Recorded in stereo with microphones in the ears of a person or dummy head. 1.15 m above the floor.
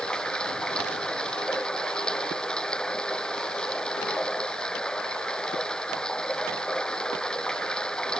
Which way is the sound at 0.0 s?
10° left (ahead or behind).